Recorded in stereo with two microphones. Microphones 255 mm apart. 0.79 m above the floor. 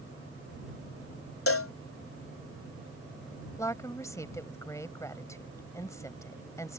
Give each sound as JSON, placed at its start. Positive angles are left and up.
{"t": 1.5, "sound": "a cowbell", "side_deg": 60}
{"t": 3.6, "sound": "a woman speaking", "side_deg": 10}